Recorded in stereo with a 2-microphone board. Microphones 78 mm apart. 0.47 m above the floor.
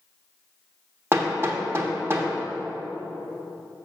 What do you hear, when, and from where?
1.1 s hammering: 30° right (ahead or behind), 1.2 m